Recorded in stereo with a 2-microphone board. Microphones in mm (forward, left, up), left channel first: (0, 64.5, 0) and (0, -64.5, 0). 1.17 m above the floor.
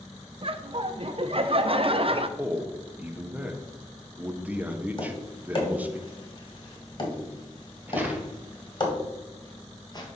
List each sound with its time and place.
0.4 s laughter: 45° right (ahead or behind), 0.6 m
2.4 s a man speaking: 10° right (ahead or behind), 0.7 m
5.0 s tapping: 40° left (ahead or behind), 1.5 m
7.9 s footsteps: 15° right (ahead or behind), 1.4 m; by 10.1 s 35° left (ahead or behind), 1.4 m